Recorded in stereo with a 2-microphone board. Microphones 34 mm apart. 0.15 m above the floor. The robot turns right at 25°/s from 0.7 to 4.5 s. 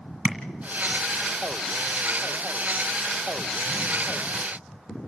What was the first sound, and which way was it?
Tapping, 20° right (ahead or behind).